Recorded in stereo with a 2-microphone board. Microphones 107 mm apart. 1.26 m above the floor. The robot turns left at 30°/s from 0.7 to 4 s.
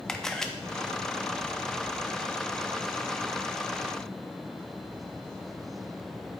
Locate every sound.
0.1 s a camera shutter: 5° left (ahead or behind), 0.6 m